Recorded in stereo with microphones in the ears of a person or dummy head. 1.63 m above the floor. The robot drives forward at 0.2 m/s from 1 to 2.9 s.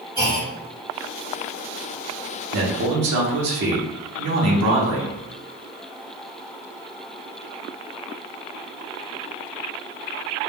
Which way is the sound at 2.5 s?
60° right (ahead or behind).